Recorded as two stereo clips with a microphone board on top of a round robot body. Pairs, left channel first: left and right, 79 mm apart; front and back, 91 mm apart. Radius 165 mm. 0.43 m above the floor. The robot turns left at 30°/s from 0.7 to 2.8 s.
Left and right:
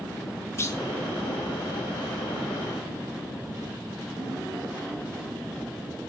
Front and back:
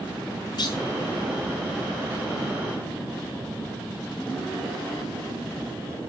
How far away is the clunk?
About 5 m.